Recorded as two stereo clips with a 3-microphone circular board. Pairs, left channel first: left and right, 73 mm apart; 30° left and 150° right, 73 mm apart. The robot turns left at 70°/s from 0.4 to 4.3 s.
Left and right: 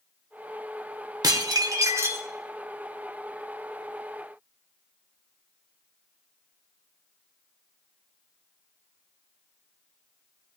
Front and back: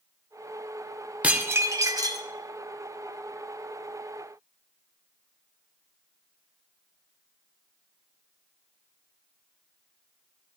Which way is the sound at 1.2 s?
80° right.